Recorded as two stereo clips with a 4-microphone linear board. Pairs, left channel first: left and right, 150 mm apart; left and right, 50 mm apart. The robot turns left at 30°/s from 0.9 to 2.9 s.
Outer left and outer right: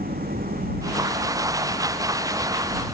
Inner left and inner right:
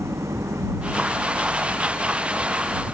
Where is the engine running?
90° right; by 2.9 s 150° right.